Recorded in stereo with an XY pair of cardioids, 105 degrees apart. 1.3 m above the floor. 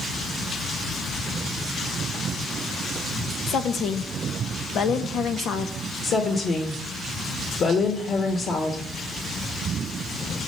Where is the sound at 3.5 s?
65° left, 0.9 m.